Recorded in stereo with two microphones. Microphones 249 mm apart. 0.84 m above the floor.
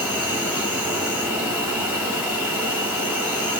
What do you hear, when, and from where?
0.0 s an insect: 5° right (ahead or behind), 4 m